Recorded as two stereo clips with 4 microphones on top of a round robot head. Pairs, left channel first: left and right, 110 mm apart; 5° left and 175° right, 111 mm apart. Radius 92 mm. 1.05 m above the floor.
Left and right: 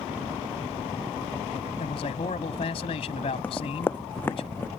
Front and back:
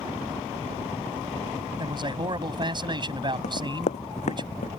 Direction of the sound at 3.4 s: 15° left.